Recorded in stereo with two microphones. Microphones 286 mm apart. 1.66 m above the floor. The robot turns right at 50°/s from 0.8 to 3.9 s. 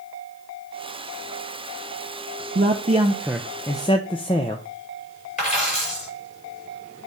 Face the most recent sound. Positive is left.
turn(degrees=25)  # may be behind; listen again after turning